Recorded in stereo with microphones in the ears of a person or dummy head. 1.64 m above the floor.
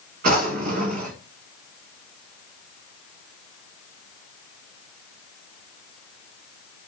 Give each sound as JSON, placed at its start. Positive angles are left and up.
{"t": 0.2, "sound": "a drawer", "side_deg": -40, "distance_m": 1.3}